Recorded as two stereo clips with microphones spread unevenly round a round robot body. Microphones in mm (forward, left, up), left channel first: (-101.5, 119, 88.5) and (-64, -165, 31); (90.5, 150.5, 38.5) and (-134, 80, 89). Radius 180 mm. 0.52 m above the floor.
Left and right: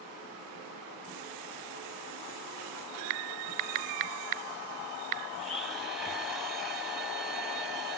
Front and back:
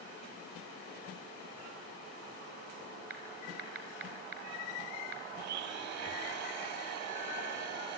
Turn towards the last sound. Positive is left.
turn(degrees=-170)